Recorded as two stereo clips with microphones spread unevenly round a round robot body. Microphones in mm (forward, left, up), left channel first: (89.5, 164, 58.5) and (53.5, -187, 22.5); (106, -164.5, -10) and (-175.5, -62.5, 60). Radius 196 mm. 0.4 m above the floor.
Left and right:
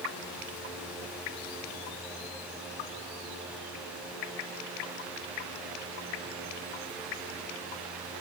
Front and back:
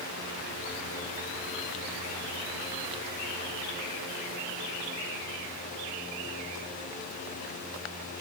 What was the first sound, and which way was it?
Only background noise.